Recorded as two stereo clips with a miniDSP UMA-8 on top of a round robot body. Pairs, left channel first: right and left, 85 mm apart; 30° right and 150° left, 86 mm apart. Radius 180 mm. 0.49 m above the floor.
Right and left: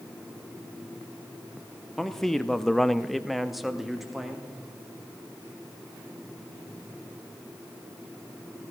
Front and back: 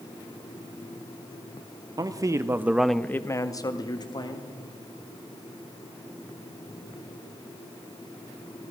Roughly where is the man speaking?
Behind.